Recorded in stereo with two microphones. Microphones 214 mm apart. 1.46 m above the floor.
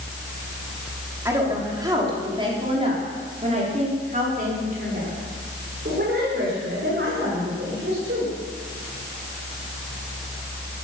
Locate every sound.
1.2 s a woman speaking: 15° right (ahead or behind), 4 m; by 8.3 s 60° right (ahead or behind), 6 m